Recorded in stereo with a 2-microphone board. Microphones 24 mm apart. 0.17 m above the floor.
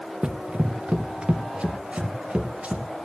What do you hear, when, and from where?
0.2 s running footsteps: 45° right (ahead or behind), 0.7 m; by 2.9 s 65° right (ahead or behind), 2 m